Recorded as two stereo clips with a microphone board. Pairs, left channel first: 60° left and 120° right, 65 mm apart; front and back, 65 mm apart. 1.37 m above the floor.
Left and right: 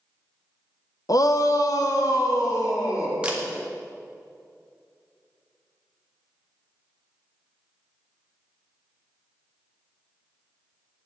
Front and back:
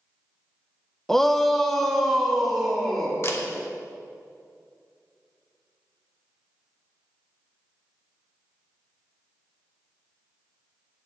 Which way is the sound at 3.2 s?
50° right.